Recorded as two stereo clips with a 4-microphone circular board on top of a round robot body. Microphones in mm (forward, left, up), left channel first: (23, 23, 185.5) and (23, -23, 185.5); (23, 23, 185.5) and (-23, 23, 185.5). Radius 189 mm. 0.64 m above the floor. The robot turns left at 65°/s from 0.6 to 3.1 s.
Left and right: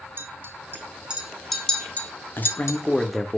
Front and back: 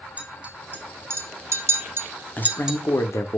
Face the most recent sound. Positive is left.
turn(degrees=0)